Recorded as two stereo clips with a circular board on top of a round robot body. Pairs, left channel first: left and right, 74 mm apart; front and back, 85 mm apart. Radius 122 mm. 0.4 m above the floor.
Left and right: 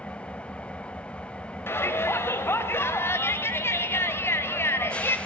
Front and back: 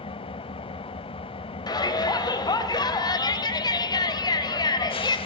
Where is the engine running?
15° left, 0.9 m.